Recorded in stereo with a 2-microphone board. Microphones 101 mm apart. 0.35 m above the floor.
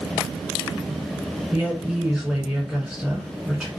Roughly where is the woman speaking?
Centre.